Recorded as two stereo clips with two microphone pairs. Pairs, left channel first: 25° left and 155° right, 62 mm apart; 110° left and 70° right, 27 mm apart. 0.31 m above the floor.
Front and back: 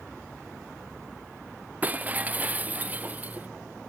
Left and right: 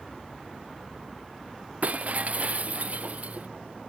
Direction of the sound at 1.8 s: 90° right.